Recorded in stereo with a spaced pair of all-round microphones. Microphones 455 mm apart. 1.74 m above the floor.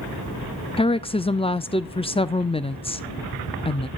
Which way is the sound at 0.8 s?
15° left (ahead or behind).